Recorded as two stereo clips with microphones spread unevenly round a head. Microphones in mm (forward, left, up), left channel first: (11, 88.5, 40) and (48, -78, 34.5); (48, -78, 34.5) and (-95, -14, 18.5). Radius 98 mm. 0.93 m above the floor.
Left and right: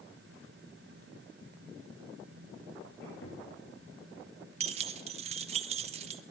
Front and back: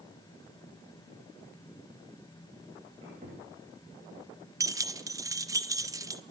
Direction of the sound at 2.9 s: 100° left.